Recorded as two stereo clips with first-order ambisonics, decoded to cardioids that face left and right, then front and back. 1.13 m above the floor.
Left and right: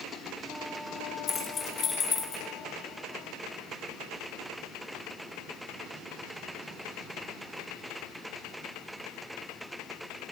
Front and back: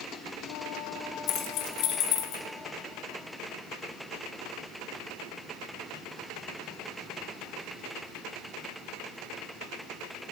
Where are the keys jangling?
25° left, 1.0 m; by 2.4 s 30° left, 1.6 m.